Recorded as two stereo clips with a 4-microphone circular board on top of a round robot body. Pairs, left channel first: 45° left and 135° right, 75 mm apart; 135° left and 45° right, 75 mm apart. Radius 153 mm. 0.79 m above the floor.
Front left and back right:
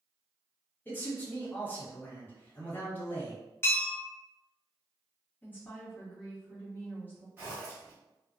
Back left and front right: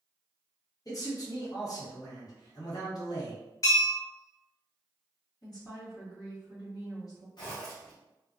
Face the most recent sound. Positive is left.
turn(degrees=160)